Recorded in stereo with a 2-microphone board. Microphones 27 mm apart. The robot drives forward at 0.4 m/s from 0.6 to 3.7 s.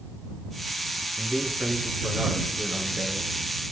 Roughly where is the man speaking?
Right.